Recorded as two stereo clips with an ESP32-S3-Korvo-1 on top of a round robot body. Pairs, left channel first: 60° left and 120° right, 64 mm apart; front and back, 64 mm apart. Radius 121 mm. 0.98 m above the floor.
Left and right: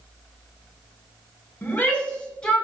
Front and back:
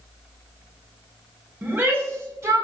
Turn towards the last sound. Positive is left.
turn(degrees=135)